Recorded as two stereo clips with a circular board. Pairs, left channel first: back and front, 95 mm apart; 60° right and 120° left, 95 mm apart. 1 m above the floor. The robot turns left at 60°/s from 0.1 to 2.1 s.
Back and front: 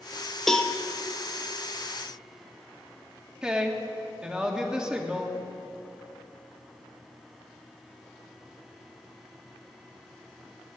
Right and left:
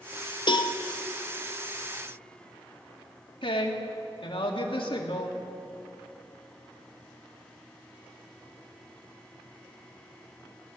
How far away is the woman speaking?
About 1.9 m.